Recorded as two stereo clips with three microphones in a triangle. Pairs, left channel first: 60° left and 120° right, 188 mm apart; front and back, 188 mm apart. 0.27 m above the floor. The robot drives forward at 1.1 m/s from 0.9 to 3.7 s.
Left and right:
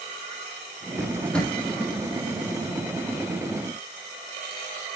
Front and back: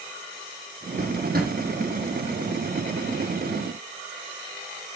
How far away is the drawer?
About 4 m.